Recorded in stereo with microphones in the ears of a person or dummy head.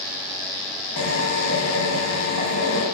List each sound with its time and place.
1.0 s a drill: 70° left (ahead or behind), 4 m